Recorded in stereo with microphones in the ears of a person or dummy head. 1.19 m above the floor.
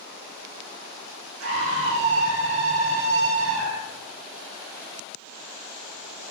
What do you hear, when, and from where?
1.4 s a scream: 65° right (ahead or behind), 1.8 m